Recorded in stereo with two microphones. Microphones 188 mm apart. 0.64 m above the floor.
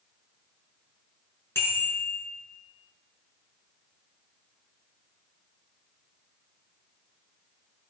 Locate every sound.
1.6 s a bicycle bell: 10° left (ahead or behind), 6 m